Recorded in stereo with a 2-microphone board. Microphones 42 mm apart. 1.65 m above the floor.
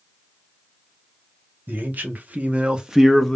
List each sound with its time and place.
1.7 s a man speaking: 55° right (ahead or behind), 1.1 m; by 3.4 s 10° left (ahead or behind), 0.5 m